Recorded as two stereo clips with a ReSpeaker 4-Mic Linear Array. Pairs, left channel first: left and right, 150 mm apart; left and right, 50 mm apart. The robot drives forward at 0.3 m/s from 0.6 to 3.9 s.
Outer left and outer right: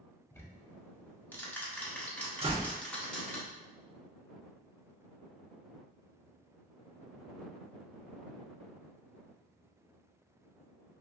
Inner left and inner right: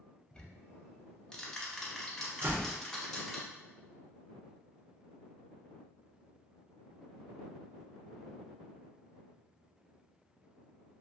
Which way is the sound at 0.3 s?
20° left (ahead or behind).